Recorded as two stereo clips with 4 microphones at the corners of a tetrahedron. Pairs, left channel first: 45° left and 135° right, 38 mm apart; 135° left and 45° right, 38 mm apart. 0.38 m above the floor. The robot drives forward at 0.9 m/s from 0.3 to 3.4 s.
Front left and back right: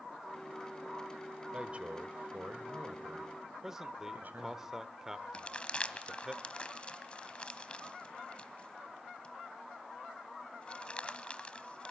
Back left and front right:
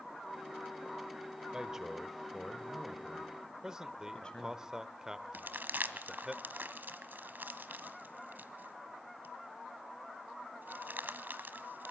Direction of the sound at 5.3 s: 15° right.